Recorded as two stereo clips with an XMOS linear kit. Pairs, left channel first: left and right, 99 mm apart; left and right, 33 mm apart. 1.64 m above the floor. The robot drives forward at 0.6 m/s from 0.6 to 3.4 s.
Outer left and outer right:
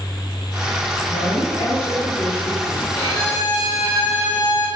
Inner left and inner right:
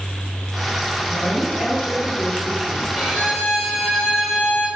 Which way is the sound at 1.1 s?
65° left (ahead or behind).